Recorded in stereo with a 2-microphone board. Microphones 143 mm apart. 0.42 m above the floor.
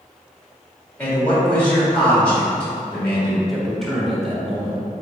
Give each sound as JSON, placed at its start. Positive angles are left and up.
{"t": 1.0, "sound": "a man speaking", "side_deg": 10, "distance_m": 1.5}
{"t": 3.5, "sound": "a man speaking", "side_deg": 0, "distance_m": 1.0}